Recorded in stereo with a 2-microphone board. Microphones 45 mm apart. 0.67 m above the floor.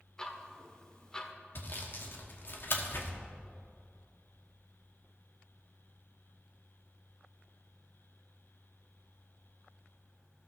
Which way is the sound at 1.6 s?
50° left (ahead or behind).